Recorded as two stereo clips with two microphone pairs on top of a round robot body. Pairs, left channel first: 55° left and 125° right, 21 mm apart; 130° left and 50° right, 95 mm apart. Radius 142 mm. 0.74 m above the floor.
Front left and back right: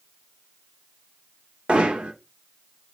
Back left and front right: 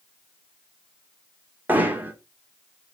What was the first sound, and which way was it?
Hammering, 120° right.